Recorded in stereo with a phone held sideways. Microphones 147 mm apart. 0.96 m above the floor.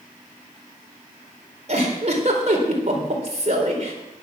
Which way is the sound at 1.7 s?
50° right (ahead or behind).